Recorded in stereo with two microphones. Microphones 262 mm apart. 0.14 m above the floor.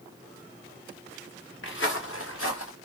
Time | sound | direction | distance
1.6 | footsteps | 50° left (ahead or behind) | 1.3 m